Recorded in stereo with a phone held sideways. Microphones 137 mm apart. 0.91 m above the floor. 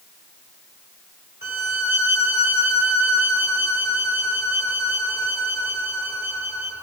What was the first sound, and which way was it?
A violin, 15° right (ahead or behind).